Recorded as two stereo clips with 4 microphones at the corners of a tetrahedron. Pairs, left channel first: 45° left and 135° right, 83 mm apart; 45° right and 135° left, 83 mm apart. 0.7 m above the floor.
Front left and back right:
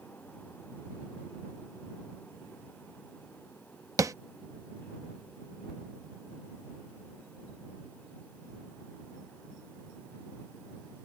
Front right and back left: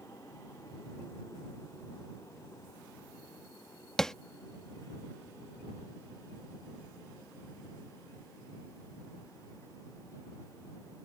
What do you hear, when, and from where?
4.0 s tapping: 125° right